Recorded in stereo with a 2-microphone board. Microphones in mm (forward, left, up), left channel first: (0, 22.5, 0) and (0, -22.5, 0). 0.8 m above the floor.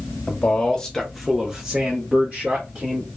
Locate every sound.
0.3 s a man speaking: 25° left (ahead or behind), 0.8 m; by 3.1 s 30° right (ahead or behind), 1.3 m